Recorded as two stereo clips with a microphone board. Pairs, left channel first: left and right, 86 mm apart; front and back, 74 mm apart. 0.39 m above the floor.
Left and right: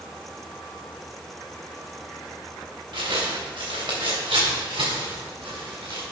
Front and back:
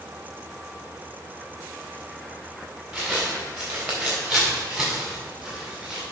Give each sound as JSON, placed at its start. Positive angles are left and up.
{"t": 2.9, "sound": "footsteps", "azimuth_deg": -90, "distance_m": 2.5}